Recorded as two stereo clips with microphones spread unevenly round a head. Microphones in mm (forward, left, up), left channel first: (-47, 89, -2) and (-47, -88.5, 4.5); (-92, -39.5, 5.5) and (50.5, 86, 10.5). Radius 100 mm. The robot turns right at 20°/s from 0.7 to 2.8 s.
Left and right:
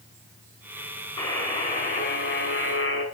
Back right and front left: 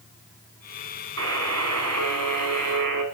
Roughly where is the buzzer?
Ahead.